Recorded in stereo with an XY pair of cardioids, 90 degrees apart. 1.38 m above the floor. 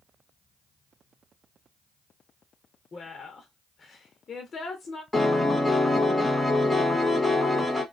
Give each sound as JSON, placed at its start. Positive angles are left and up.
{"t": 2.9, "sound": "a woman speaking", "azimuth_deg": 45, "distance_m": 0.9}
{"t": 5.1, "sound": "a piano", "azimuth_deg": 5, "distance_m": 1.4}